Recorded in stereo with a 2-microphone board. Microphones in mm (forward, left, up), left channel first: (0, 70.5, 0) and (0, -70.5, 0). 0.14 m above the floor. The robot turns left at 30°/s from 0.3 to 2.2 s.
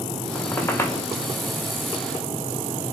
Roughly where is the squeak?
Centre.